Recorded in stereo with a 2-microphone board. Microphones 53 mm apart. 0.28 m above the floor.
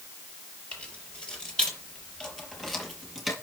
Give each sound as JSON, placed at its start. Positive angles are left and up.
{"t": 0.7, "sound": "keys jangling", "side_deg": 20, "distance_m": 4.5}